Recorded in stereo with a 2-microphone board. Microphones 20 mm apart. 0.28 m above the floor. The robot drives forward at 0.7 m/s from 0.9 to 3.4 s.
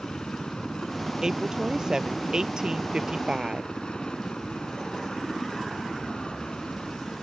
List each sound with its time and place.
0.0 s a helicopter: 60° left (ahead or behind)
1.2 s a woman speaking: 35° right (ahead or behind); by 3.7 s 45° right (ahead or behind)